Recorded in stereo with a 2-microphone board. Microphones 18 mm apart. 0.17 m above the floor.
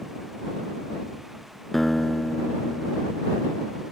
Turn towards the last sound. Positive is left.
turn(degrees=15)  # may be behind; listen again after turning